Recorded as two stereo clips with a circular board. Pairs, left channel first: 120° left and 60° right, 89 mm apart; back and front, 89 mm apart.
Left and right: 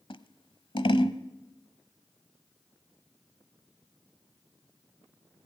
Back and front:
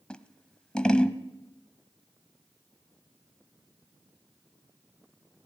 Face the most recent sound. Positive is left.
turn(degrees=100)